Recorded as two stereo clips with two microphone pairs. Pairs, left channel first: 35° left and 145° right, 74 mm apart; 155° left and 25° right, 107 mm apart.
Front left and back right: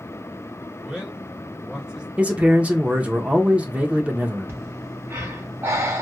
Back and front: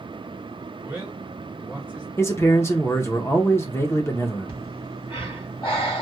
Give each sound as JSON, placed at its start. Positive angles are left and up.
{"t": 0.8, "sound": "a man speaking", "azimuth_deg": -85, "distance_m": 1.4}
{"t": 2.2, "sound": "a man speaking", "azimuth_deg": 170, "distance_m": 0.8}
{"t": 4.5, "sound": "breathing", "azimuth_deg": 170, "distance_m": 2.0}